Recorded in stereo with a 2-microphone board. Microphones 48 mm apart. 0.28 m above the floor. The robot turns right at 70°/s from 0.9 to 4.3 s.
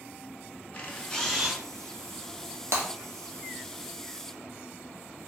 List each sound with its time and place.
0.7 s a camera shutter: 150° left, 0.5 m; by 1.6 s 165° right, 0.5 m
2.7 s breaking glass: 80° right, 1.0 m; by 2.9 s 70° right (ahead or behind), 1.0 m